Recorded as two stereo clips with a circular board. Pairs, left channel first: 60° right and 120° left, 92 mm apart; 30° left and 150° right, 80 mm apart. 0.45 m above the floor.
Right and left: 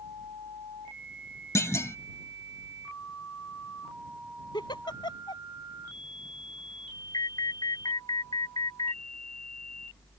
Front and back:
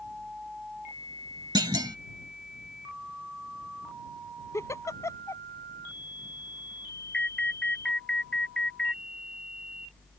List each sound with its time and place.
1.6 s a clunk: 120° right
4.5 s a giggle: 25° right
7.1 s an alarm: 45° right